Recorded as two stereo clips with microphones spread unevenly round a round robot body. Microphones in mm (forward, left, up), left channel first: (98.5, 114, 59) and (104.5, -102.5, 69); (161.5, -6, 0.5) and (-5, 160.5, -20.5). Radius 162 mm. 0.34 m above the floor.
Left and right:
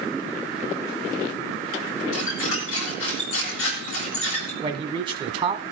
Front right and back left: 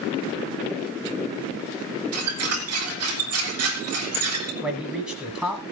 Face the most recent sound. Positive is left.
turn(degrees=-150)